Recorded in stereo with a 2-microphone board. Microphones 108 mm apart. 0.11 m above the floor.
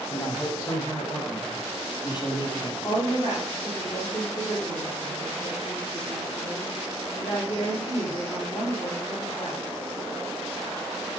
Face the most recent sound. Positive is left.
turn(degrees=45)  # may be behind; listen again after turning